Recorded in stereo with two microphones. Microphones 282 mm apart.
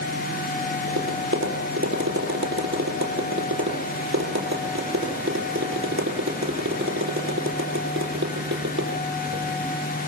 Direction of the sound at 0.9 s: 45° right (ahead or behind).